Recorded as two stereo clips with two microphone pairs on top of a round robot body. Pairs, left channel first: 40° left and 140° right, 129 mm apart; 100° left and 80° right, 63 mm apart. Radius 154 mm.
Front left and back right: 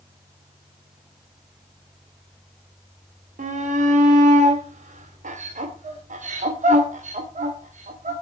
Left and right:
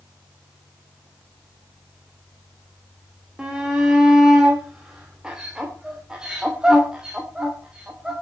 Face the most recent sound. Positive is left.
turn(degrees=-160)